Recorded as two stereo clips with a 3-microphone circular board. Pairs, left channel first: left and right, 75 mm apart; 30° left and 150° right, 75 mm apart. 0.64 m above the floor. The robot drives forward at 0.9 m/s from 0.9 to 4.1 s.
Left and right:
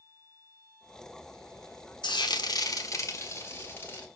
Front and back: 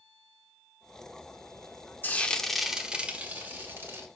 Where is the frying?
95° left, 0.9 m; by 4.1 s 155° left, 2 m.